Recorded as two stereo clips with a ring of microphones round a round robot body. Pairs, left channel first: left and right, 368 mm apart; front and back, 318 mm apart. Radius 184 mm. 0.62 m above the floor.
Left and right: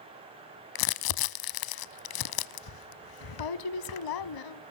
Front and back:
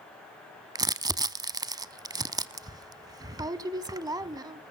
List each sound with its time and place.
0.8 s crumpling: 105° left, 0.7 m